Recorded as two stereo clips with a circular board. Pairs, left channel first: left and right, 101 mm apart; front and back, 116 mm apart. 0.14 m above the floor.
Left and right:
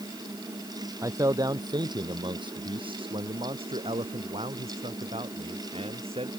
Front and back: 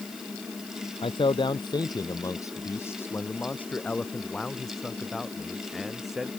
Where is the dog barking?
I don't hear a dog barking.